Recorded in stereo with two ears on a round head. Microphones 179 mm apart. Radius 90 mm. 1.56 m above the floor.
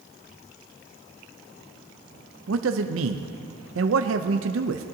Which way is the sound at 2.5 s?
70° right (ahead or behind).